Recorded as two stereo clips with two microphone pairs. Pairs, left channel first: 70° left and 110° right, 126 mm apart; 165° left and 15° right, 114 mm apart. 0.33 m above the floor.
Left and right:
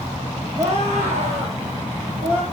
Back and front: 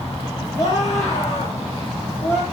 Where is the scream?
135° right, 6.5 m; by 2.4 s 130° right, 5.5 m.